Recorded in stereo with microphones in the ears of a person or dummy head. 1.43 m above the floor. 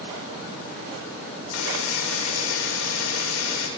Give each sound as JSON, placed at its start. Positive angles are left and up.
{"t": 1.5, "sound": "a buzzer", "side_deg": 85, "distance_m": 5.0}